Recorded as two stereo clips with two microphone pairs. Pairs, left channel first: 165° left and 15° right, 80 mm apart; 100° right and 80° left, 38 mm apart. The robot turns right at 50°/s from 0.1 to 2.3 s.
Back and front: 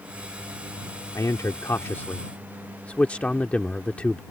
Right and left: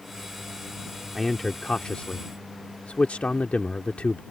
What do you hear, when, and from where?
1.1 s a man speaking: 175° left; by 4.2 s 130° right